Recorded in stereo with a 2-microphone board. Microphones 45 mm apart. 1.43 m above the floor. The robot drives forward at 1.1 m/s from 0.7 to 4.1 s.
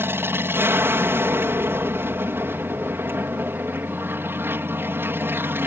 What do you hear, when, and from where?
0.0 s an aircraft: 60° right (ahead or behind)